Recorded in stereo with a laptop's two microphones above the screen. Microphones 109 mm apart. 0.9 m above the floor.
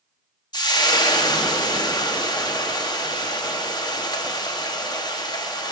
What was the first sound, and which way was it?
Frying, 40° left (ahead or behind).